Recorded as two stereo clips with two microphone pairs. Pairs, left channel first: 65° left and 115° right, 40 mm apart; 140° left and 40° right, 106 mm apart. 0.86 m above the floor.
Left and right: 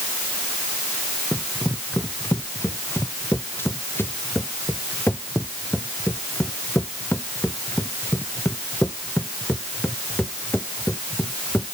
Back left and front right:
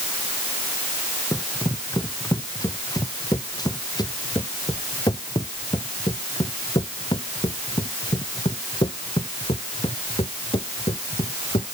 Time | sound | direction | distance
1.3 | running footsteps | 80° left | ?